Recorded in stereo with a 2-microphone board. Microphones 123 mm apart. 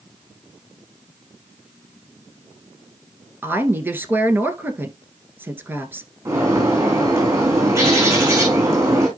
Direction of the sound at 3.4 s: 20° right (ahead or behind).